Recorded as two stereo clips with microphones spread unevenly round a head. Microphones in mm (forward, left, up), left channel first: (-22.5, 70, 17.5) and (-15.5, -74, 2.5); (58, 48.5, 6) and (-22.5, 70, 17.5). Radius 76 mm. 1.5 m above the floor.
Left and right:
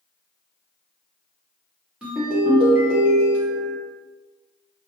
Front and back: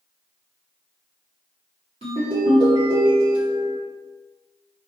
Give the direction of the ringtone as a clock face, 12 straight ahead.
6 o'clock.